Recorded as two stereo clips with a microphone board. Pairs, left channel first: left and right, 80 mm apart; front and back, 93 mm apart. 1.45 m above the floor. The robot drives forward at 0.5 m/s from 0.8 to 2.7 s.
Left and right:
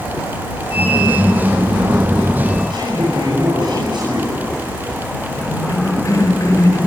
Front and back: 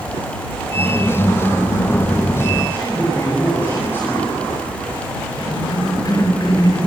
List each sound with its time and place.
2.7 s a man speaking: 70° right, 9 m
5.4 s a cough: 40° left, 6 m